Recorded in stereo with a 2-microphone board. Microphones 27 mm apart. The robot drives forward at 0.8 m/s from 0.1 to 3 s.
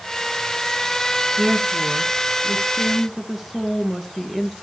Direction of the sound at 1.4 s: 5° right (ahead or behind).